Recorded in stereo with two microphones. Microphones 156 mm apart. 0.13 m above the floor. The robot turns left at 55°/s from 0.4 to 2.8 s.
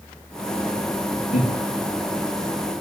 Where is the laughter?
50° left (ahead or behind), 2 m; by 1.5 s 45° left (ahead or behind), 2 m.